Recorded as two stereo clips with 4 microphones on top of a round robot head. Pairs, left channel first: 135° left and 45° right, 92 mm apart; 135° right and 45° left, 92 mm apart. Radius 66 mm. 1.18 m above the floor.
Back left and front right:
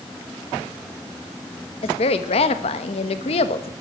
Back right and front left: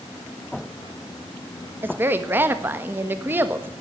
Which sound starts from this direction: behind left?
A woman speaking, at 1.8 s.